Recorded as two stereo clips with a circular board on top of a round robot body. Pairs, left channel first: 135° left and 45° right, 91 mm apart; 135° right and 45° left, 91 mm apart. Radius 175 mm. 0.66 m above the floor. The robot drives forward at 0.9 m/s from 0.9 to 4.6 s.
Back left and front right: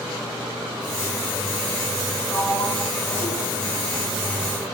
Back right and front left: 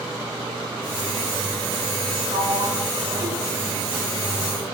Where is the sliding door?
70° left, 3.5 m; by 4.6 s 105° left, 3.5 m.